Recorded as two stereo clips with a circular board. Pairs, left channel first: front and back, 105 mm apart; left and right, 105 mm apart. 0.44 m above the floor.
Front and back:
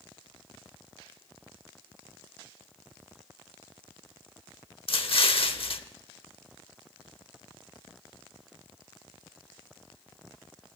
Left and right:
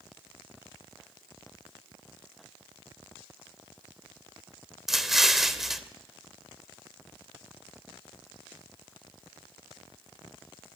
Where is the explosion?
5° right, 0.8 m.